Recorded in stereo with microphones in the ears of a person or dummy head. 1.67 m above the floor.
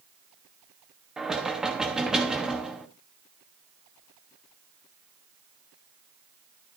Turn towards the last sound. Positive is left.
turn(degrees=-5)  # may be behind; listen again after turning